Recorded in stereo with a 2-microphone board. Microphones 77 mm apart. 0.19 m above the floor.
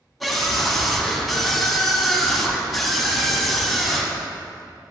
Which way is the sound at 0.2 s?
Centre (ahead or behind).